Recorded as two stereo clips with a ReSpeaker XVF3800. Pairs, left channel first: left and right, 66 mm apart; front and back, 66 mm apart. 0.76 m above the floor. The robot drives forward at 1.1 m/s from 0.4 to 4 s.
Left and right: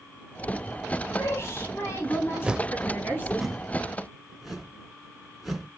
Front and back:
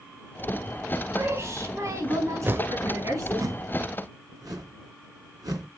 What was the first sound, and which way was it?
A woman speaking, 130° left.